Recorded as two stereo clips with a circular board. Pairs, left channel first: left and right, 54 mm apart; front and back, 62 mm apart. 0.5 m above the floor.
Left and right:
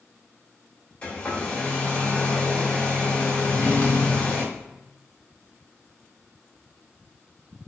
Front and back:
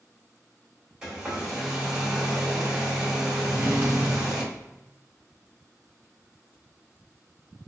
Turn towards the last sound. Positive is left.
turn(degrees=130)